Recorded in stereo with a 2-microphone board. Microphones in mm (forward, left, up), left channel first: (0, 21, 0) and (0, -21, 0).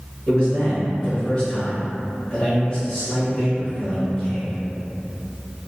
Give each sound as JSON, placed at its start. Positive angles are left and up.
{"t": 0.3, "sound": "a man speaking", "side_deg": 25, "distance_m": 1.3}